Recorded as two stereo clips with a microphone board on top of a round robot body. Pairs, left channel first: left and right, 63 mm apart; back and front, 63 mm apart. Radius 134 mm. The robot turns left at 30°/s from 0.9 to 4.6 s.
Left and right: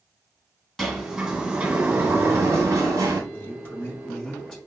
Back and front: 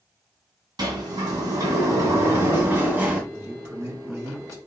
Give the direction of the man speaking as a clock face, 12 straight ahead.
10 o'clock.